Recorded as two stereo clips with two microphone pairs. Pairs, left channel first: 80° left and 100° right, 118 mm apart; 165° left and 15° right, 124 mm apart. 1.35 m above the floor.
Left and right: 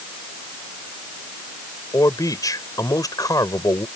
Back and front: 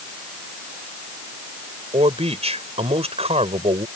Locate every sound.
1.9 s a man speaking: 20° left